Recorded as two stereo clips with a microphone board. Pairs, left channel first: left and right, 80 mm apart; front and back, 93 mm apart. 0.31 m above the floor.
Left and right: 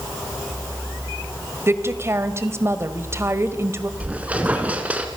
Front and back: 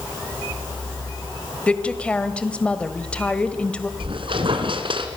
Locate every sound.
1.7 s a woman speaking: 70° right, 1.7 m
4.0 s a squeak: 160° right, 2.5 m